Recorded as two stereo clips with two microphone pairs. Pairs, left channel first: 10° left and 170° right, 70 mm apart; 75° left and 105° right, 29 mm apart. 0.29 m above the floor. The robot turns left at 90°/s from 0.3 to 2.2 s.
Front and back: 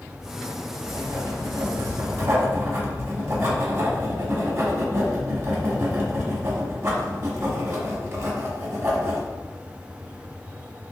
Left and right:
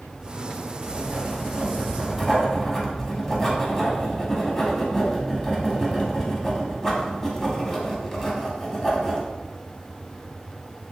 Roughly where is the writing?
Right.